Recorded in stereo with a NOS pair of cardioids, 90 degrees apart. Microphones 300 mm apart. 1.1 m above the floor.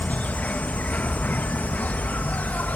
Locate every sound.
0.0 s an insect: 5° left